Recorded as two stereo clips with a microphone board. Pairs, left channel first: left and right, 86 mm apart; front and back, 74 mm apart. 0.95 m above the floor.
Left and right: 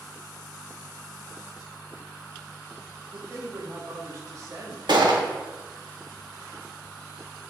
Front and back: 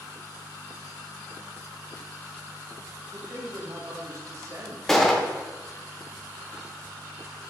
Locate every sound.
3.1 s a man speaking: 135° right, 1.5 m
4.9 s a gunshot: 85° right, 1.0 m